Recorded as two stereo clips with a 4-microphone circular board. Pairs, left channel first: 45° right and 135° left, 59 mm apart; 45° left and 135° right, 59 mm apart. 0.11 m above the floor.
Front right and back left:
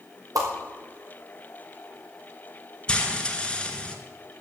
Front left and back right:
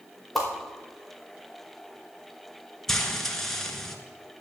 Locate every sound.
0.3 s a whoosh: 135° left, 3.5 m
2.9 s frying: 20° right, 1.4 m